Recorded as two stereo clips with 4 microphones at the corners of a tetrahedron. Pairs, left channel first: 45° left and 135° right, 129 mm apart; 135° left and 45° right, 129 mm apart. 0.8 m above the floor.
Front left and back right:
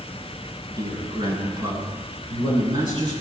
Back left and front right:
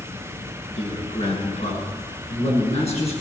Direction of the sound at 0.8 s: 165° left.